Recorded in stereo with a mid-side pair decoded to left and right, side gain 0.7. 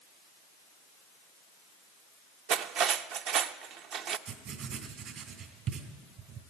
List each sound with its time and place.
2.5 s cutlery clinking: 55° right, 0.6 m
4.3 s writing: 50° right, 2.5 m